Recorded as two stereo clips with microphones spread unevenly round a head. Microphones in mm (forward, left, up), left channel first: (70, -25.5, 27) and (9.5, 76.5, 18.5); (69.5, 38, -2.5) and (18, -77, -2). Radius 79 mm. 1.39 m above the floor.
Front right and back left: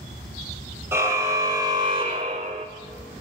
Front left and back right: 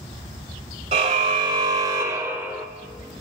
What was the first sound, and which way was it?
A car horn, 165° right.